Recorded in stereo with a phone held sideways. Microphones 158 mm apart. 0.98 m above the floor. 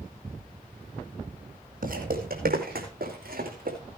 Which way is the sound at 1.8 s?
65° right (ahead or behind).